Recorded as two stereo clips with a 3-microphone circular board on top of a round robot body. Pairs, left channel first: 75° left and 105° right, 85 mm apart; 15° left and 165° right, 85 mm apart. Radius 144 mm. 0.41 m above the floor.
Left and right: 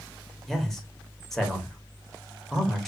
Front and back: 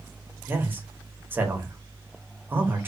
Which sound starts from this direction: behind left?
A man speaking, at 0.5 s.